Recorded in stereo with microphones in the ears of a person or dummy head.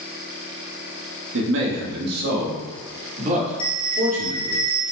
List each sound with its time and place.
1.3 s a man speaking: 75° right (ahead or behind), 1.7 m; by 4.6 s 40° right (ahead or behind), 3.5 m
3.6 s a bell: 30° left (ahead or behind), 1.1 m